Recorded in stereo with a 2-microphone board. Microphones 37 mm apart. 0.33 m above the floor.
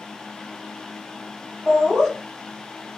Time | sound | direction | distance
1.7 | laughter | 15° right (ahead or behind) | 1.7 m